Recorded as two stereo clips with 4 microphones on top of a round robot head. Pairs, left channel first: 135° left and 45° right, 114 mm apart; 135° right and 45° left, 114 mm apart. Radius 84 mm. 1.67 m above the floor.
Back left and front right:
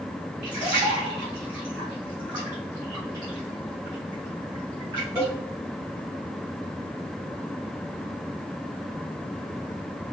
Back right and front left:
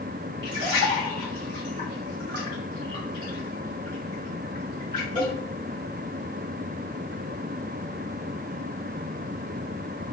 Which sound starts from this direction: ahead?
A splash, at 0.4 s.